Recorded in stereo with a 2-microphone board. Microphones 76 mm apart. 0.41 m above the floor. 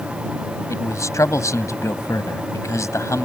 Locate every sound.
0.7 s a man speaking: 40° left (ahead or behind)